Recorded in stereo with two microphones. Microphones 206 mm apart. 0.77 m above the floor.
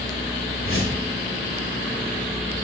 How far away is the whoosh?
About 2 m.